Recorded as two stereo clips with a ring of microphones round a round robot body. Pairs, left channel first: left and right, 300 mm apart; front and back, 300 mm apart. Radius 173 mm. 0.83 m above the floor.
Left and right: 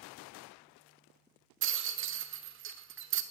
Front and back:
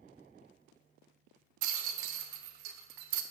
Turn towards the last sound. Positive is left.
turn(degrees=-140)